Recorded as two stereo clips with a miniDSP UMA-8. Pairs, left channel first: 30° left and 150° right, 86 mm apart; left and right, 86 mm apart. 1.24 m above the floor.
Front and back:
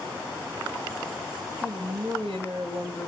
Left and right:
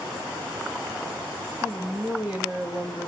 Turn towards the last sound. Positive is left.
turn(degrees=-160)